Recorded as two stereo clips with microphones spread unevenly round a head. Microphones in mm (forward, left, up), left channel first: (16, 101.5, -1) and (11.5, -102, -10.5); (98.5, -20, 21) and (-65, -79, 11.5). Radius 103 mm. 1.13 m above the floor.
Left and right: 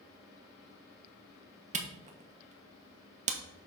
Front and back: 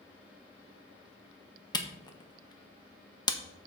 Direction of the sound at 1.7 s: 45° right.